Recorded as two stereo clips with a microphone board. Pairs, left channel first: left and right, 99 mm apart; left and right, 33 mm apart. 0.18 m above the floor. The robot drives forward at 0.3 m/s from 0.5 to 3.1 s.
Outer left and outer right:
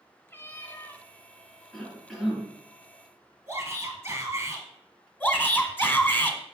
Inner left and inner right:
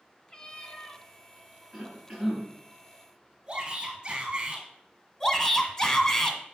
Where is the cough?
5° left (ahead or behind), 2.5 m.